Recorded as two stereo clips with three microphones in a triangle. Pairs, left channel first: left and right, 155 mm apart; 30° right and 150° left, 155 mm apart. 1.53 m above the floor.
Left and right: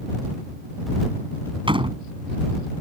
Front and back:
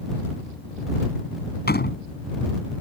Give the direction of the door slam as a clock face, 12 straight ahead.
1 o'clock.